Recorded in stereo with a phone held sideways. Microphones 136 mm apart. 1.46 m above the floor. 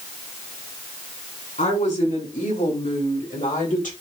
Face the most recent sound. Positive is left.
turn(degrees=85)